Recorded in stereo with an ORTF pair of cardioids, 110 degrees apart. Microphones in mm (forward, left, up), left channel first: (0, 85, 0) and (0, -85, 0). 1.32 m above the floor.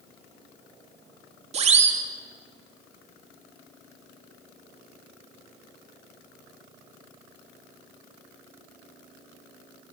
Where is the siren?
40° right, 3 m.